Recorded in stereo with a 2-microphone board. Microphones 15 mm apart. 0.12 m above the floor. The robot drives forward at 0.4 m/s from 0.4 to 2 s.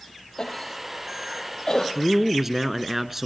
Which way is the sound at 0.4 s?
50° left (ahead or behind).